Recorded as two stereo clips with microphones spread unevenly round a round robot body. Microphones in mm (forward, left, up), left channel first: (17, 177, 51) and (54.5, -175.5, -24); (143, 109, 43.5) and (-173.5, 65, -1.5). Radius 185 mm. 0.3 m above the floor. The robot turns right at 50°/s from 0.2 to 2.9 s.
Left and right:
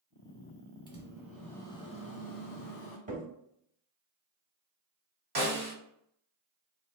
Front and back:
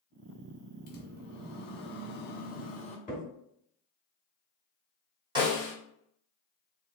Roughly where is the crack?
Ahead right.